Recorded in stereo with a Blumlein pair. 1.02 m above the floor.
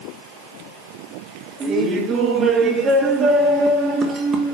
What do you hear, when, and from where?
1.6 s laughter: 20° right, 2.5 m